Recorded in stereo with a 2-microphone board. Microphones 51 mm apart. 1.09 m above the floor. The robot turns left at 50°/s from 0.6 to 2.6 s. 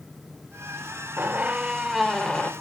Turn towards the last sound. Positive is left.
turn(degrees=150)